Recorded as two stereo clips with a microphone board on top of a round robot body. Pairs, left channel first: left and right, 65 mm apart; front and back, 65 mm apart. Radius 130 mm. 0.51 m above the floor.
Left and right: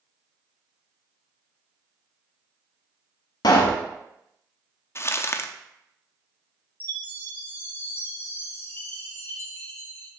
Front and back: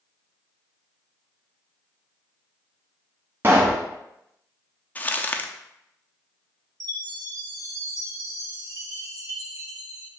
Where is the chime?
150° left, 1.6 m.